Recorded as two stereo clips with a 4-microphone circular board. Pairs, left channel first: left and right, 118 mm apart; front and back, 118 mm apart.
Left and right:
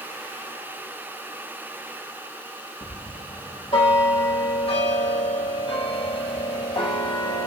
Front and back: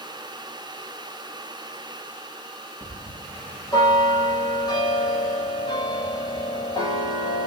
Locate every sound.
2.8 s a bell: 50° left, 2.5 m